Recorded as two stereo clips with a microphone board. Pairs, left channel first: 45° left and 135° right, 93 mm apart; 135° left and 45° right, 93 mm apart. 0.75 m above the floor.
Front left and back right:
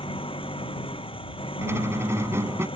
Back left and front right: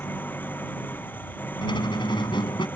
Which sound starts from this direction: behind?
A squeak, at 1.6 s.